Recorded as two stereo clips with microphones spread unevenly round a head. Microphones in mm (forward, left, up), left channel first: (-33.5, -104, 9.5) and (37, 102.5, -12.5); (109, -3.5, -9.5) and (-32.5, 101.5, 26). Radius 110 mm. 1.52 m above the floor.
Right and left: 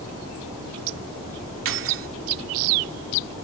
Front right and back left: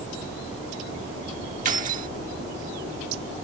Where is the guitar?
No guitar in this recording.